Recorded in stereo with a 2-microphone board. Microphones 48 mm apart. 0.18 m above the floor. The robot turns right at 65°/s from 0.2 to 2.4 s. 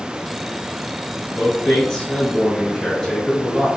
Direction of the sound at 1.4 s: 25° left (ahead or behind).